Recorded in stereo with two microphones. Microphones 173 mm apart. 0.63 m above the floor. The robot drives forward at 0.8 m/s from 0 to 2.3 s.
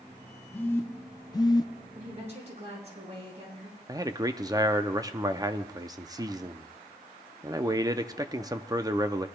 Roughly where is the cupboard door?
I don't hear a cupboard door.